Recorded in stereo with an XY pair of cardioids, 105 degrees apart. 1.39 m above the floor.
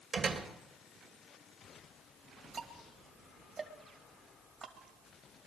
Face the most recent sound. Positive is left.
turn(degrees=-45)